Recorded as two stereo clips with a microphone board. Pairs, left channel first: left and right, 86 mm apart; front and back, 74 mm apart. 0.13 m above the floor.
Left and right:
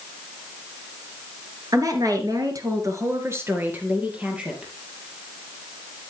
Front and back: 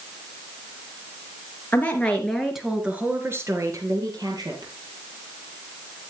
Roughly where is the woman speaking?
Ahead right.